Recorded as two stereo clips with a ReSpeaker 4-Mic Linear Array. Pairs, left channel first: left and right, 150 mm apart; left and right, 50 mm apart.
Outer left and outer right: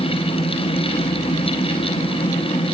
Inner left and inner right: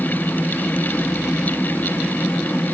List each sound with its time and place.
Only background noise.